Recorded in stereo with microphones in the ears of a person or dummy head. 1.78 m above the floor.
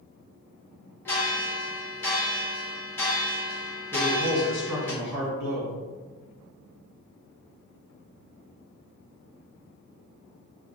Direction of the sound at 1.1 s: 10° left (ahead or behind).